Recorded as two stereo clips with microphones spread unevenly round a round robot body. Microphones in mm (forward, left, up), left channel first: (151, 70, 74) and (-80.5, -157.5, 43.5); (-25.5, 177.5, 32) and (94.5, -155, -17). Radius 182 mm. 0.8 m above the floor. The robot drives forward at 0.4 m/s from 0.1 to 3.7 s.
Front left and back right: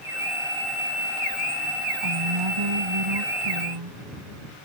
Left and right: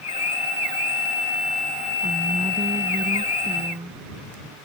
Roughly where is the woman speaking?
Behind right.